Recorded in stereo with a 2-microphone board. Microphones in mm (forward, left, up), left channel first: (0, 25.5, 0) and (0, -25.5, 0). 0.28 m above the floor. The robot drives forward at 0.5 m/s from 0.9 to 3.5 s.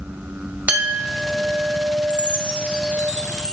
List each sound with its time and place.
0.7 s a clink: 25° right (ahead or behind), 1.0 m; by 3.1 s 15° right (ahead or behind), 1.6 m
2.1 s a chime: 30° right (ahead or behind), 0.6 m; by 3.5 s 15° right (ahead or behind), 1.3 m